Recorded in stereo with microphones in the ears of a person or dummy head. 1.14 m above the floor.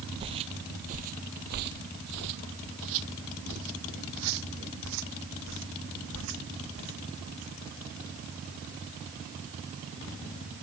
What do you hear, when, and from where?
0.2 s footsteps: 25° right (ahead or behind); by 7.5 s 75° right (ahead or behind)